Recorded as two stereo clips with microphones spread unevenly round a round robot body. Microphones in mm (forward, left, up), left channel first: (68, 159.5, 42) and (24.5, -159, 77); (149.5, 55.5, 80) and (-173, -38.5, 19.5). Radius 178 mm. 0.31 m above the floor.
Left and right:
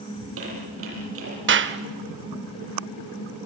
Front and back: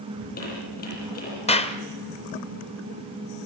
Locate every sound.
0.2 s a squeak: 50° right, 8.5 m
1.5 s a clap: 60° right, 1.2 m